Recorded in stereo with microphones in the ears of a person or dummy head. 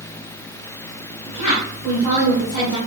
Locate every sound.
1.3 s a woman speaking: 45° left (ahead or behind), 2.0 m